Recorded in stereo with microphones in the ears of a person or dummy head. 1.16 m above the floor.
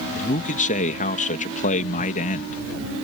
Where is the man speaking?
40° left (ahead or behind).